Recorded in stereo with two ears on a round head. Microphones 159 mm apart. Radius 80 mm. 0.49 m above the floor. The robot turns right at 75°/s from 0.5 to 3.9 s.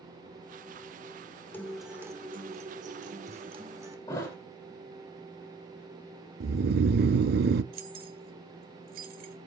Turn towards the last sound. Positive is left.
turn(degrees=-55)  # may be behind; listen again after turning